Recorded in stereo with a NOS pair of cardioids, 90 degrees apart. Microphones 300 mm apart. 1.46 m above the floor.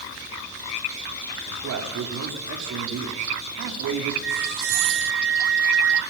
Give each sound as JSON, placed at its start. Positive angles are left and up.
{"t": 1.5, "sound": "a man speaking", "azimuth_deg": -60, "distance_m": 5.0}
{"t": 4.2, "sound": "a flute", "azimuth_deg": -40, "distance_m": 0.7}